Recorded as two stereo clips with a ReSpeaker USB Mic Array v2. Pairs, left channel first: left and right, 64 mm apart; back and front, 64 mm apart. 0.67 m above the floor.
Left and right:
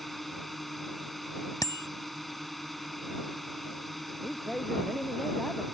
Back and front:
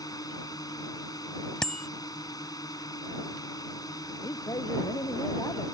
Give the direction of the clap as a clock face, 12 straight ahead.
No clap in this recording.